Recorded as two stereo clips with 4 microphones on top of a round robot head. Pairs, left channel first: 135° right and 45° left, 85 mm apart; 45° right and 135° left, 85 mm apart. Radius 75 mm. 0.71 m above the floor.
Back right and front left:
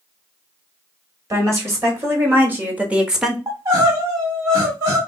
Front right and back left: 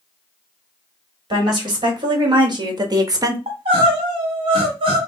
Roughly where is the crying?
Left.